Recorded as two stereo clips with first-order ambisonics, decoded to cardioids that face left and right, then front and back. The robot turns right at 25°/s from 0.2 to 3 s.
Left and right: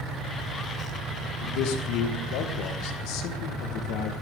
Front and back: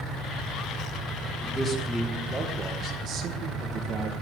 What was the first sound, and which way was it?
A man speaking, 80° left.